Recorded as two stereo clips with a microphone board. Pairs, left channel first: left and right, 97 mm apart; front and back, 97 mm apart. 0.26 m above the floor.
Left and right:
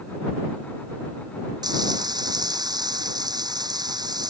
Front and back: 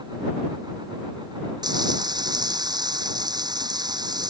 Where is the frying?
135° right.